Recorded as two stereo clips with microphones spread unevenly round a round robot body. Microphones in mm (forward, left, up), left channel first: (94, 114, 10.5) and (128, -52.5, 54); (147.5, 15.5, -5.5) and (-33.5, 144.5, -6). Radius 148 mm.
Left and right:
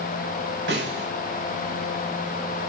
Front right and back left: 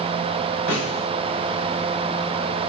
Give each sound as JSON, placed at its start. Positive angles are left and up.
{"t": 0.7, "sound": "a snare drum", "azimuth_deg": -80, "distance_m": 7.0}